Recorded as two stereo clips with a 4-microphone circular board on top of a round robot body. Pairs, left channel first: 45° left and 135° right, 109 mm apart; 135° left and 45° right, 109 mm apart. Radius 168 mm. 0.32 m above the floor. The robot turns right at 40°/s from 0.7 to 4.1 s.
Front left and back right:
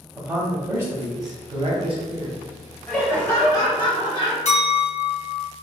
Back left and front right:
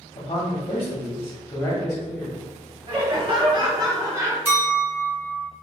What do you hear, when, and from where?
0.1 s a man speaking: 170° left, 1.2 m; by 2.4 s 120° right, 1.2 m
2.9 s laughter: 35° right, 1.7 m; by 4.3 s 15° left, 1.7 m
4.5 s a clink: 30° left, 1.8 m